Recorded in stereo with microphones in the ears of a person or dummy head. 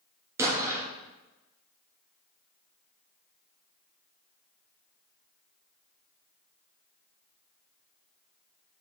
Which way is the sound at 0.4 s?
15° right (ahead or behind).